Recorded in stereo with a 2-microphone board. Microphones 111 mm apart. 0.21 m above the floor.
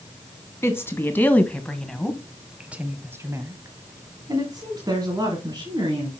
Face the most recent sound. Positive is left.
turn(degrees=-40)  # may be behind; listen again after turning